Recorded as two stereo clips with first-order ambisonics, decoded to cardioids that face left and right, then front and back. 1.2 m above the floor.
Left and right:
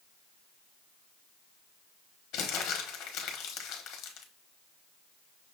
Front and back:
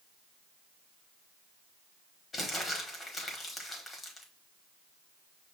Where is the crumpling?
65° left, 1.1 m.